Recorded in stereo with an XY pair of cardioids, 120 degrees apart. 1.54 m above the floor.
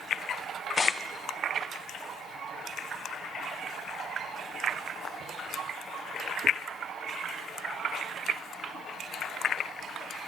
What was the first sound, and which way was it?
Tearing paper, 25° left.